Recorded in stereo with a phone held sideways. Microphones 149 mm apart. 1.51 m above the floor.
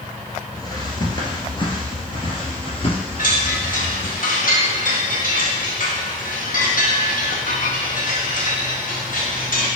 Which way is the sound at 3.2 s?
65° left (ahead or behind).